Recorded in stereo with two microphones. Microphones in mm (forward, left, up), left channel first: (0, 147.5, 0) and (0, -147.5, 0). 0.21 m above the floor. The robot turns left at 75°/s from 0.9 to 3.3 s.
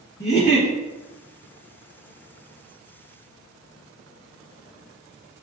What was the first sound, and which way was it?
A giggle, 35° left (ahead or behind).